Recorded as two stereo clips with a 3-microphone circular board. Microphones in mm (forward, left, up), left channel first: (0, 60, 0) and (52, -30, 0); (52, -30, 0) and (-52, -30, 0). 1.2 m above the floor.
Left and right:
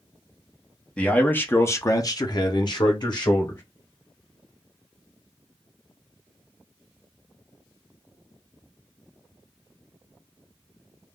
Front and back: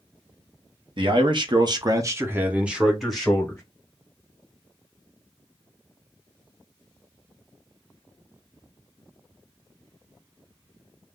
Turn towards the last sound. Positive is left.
turn(degrees=80)